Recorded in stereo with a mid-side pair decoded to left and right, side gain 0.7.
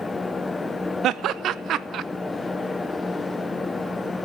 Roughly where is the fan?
Ahead.